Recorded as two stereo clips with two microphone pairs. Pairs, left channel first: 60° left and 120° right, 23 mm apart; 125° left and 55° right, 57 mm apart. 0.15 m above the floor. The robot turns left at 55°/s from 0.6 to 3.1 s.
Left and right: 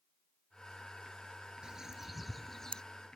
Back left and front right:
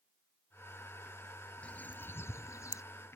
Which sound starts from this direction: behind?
A bird, at 1.6 s.